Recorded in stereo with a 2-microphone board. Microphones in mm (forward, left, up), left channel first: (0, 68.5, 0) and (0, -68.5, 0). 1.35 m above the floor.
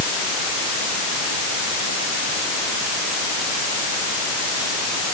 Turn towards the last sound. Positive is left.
No sound to turn to.